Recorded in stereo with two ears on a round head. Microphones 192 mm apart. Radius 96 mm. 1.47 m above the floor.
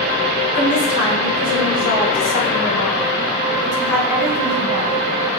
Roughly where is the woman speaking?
Left.